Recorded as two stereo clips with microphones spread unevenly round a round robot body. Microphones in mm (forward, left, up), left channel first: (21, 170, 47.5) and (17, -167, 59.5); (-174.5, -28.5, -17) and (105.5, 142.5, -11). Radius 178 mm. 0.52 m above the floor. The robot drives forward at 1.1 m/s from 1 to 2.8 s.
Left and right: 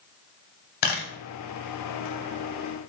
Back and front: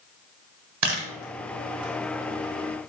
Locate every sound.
0.8 s a camera shutter: 70° left, 1.5 m; by 1.1 s 75° left, 1.4 m